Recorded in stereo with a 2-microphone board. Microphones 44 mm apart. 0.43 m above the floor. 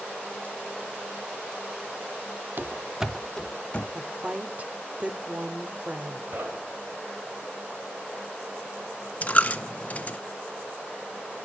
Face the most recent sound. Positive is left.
turn(degrees=30)  # may be behind; listen again after turning